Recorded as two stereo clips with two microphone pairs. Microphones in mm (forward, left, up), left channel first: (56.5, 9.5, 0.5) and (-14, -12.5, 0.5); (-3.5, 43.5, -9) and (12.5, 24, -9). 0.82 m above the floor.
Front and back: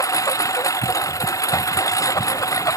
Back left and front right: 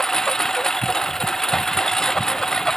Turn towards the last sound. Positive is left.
turn(degrees=60)